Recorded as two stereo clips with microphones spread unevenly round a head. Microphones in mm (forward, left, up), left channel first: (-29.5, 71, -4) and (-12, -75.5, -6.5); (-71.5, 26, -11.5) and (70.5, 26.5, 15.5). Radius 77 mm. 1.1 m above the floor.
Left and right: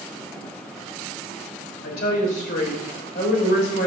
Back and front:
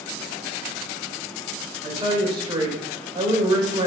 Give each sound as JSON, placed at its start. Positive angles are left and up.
{"t": 1.8, "sound": "a woman speaking", "azimuth_deg": 60, "distance_m": 4.0}